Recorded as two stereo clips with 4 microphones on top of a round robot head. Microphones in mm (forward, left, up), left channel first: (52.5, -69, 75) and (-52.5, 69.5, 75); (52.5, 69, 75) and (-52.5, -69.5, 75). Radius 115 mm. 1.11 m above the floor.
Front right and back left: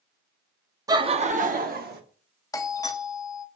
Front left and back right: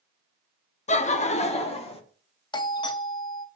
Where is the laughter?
70° left, 0.6 m; by 2.0 s 110° left, 1.1 m.